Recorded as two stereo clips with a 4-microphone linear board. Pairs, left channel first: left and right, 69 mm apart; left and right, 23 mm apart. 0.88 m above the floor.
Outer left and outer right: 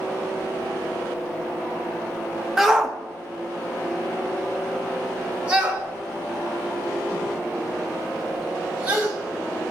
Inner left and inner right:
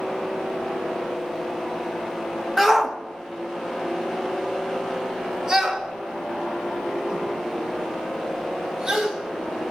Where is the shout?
5° right (ahead or behind), 1.2 m; by 9.1 s 20° right (ahead or behind), 5 m.